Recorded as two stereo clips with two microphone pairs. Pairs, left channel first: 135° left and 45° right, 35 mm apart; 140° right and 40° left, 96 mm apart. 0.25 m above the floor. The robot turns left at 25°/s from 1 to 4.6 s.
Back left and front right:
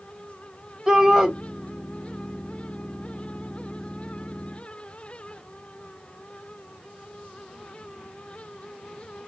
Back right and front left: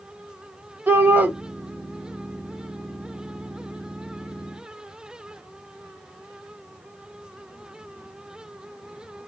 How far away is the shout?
About 1.3 m.